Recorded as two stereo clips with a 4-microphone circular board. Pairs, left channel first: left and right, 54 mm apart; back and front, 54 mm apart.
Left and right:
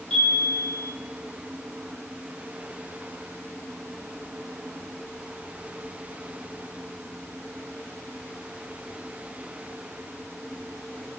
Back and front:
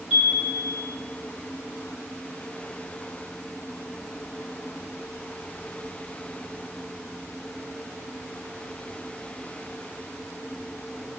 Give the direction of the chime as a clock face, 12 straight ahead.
11 o'clock.